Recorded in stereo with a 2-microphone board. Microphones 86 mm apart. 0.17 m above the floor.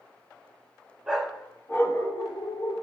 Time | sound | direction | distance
1.1 | a dog barking | 10° right (ahead or behind) | 0.7 m